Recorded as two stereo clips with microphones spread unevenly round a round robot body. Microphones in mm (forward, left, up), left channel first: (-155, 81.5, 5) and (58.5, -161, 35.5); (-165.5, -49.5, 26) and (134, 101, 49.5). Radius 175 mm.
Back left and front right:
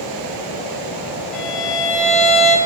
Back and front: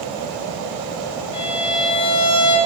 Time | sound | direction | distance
1.3 | a violin | 140° right | 2 m